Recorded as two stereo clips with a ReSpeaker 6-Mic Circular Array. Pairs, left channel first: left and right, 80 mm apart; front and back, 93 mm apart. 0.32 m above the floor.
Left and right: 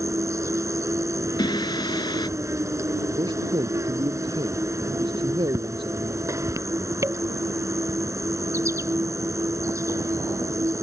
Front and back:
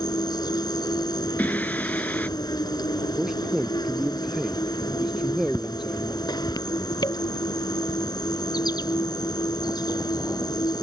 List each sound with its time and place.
0.0 s an insect: 40° right
1.4 s singing: 70° left
3.2 s a man speaking: 95° right